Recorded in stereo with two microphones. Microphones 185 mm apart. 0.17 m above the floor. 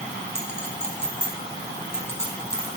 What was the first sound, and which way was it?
A clink, 65° right (ahead or behind).